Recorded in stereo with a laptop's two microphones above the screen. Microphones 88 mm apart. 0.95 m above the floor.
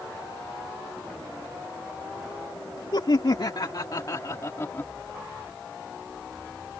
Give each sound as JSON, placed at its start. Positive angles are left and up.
{"t": 2.9, "sound": "laughter", "side_deg": 70}